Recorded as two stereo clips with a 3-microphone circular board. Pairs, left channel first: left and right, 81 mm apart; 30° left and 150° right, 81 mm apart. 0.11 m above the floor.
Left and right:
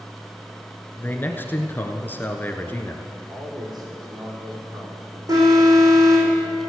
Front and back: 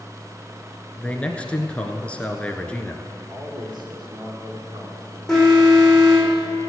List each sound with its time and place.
1.0 s a man speaking: 80° left, 1.2 m
3.3 s a man speaking: 120° right, 5.5 m
5.3 s an alarm: 60° right, 5 m